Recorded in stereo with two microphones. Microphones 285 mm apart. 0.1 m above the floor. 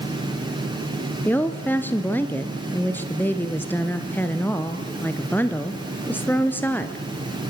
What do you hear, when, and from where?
1.2 s a woman speaking: 5° left (ahead or behind), 1.6 m